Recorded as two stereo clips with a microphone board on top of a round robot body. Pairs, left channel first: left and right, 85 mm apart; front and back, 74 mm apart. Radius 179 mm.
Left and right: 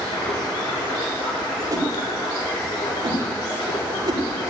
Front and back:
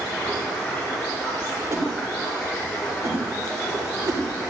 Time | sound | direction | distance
0.0 | running water | 80° left | 6 m
1.7 | a whoosh | 130° right | 2.5 m